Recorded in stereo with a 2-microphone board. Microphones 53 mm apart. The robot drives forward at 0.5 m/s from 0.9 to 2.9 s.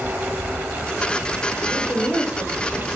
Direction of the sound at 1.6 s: 75° left (ahead or behind).